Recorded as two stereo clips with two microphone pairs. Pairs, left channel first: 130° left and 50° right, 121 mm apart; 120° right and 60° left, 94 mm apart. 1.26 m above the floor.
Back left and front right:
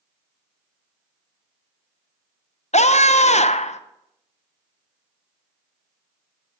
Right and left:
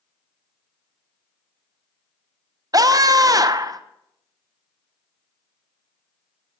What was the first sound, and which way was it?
A scream, 110° left.